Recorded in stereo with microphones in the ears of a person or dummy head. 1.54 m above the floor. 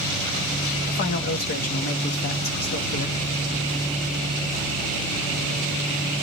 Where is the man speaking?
50° left (ahead or behind), 1.0 m.